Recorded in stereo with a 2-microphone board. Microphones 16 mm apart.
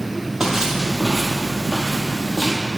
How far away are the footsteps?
About 1.8 m.